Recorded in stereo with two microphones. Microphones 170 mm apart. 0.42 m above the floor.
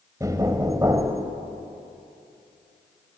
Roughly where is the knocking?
Right.